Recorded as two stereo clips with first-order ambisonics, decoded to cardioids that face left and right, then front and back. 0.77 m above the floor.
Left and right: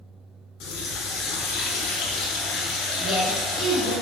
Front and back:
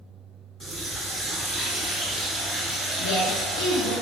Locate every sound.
0.6 s a running tap: 85° left, 0.7 m
3.0 s a woman speaking: straight ahead, 1.0 m